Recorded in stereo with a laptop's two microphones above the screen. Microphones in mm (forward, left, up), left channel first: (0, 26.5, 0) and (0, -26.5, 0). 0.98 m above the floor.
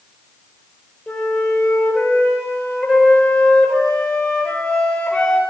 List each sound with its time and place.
1.1 s a flute: 15° left (ahead or behind), 4 m